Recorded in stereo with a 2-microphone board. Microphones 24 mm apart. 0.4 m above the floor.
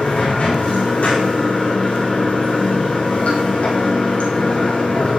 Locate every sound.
0.0 s running water: 75° left (ahead or behind), 6.5 m